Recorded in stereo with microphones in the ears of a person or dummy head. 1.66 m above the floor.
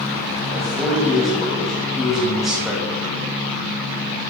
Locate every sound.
0.5 s a man speaking: 5° right (ahead or behind), 2.5 m